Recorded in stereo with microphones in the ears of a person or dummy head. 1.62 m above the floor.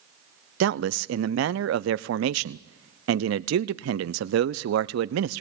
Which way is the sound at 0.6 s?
75° right (ahead or behind).